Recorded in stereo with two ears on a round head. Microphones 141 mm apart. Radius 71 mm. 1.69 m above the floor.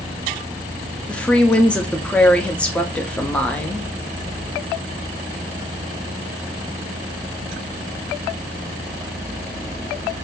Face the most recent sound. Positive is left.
turn(degrees=5)  # may be behind; listen again after turning